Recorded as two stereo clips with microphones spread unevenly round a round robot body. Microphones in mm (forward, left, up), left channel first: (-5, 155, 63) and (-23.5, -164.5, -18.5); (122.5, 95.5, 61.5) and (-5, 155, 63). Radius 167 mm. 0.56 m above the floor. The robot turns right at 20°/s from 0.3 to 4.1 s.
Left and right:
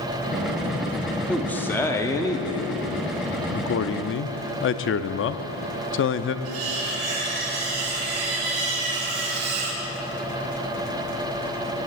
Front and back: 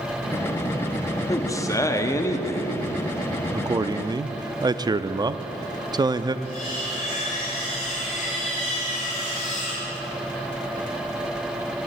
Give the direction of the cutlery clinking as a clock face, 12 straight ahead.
3 o'clock.